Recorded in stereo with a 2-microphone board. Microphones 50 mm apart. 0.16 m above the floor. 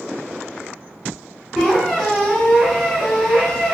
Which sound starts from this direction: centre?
A squeak, at 1.6 s.